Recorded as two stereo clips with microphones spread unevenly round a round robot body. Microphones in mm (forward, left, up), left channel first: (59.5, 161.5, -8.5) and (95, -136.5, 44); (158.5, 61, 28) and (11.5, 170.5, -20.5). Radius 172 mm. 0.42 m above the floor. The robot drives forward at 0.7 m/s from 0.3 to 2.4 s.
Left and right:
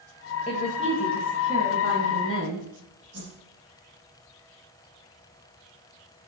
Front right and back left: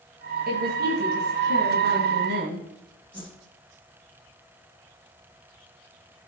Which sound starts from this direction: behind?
A woman speaking, at 0.5 s.